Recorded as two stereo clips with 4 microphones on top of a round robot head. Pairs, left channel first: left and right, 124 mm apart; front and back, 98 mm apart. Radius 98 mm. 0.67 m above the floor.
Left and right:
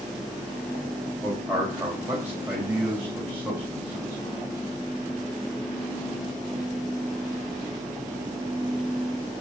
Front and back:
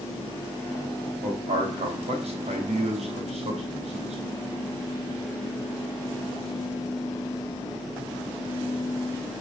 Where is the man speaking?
170° right, 3.5 m.